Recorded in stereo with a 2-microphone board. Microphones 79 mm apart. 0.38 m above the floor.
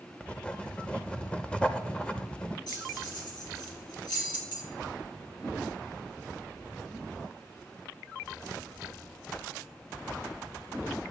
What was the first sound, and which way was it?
Writing, 15° left (ahead or behind).